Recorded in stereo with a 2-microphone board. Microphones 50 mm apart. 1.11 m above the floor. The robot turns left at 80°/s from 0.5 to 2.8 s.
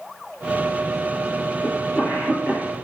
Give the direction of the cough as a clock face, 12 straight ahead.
12 o'clock.